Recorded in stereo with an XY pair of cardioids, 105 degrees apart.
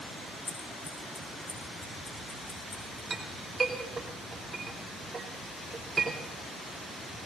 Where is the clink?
25° right, 5 m.